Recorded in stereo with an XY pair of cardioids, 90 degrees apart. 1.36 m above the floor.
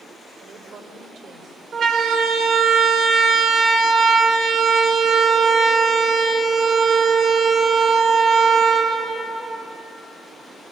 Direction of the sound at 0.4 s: 65° right.